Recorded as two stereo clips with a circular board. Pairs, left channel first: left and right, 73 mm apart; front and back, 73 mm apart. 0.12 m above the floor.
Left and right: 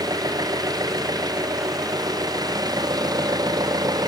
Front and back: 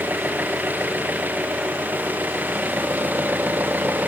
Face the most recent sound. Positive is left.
turn(degrees=-115)